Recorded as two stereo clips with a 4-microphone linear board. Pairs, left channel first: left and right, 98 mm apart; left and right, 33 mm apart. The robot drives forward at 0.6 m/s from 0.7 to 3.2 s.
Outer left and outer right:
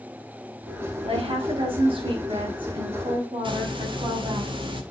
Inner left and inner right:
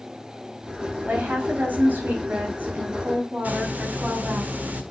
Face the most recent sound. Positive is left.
turn(degrees=-60)  # may be behind; listen again after turning